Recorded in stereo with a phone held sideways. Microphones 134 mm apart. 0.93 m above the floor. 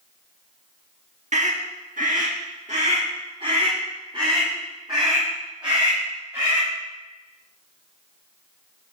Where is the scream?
60° right (ahead or behind), 1.4 m; by 6.7 s 30° right (ahead or behind), 5.5 m.